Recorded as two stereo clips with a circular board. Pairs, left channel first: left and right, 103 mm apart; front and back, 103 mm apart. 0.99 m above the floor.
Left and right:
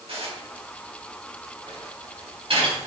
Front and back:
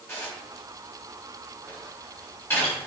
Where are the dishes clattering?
65° right, 4.5 m.